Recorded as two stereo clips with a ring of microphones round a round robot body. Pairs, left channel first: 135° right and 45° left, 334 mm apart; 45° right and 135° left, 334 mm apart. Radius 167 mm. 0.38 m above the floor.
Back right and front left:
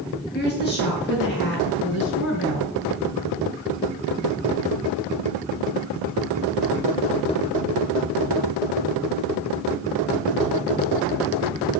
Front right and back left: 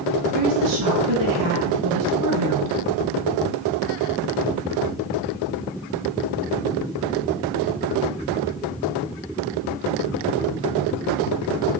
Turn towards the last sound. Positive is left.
turn(degrees=170)